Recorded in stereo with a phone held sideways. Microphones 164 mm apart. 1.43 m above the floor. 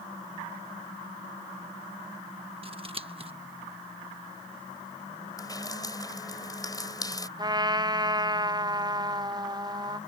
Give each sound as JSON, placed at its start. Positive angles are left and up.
{"t": 2.6, "sound": "scissors", "side_deg": -35}
{"t": 5.4, "sound": "dripping", "side_deg": 25}
{"t": 7.4, "sound": "a trumpet", "side_deg": -25}